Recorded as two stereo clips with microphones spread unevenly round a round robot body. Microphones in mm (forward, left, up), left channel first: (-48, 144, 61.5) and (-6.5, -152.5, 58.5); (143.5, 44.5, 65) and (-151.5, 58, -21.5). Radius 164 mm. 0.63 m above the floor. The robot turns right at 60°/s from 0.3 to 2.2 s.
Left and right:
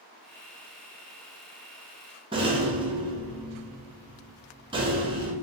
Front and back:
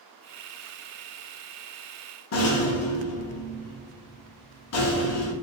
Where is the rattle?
25° right, 0.7 m.